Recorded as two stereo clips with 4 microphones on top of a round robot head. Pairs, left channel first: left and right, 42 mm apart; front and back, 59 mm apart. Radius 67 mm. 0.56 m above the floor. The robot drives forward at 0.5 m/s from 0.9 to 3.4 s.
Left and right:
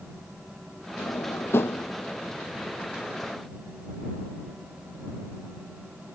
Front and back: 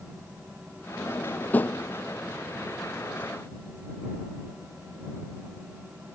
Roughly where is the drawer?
Ahead left.